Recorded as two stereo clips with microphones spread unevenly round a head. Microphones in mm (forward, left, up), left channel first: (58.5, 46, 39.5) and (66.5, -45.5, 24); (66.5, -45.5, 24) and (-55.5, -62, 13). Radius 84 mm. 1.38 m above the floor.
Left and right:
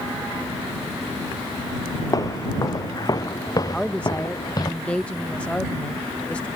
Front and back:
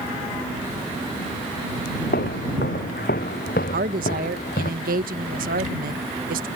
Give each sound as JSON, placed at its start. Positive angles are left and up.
{"t": 2.1, "sound": "footsteps", "azimuth_deg": 45}
{"t": 3.7, "sound": "a woman speaking", "azimuth_deg": 175}